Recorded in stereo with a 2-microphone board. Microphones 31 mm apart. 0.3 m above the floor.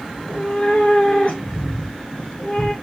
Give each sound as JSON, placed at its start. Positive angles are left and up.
{"t": 0.1, "sound": "a cat meowing", "side_deg": 55, "distance_m": 2.0}